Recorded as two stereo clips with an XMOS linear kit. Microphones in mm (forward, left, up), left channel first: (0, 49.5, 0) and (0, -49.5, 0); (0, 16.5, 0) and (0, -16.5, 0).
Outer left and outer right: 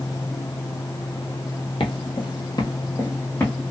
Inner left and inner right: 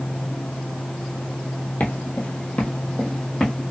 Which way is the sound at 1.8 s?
60° left (ahead or behind).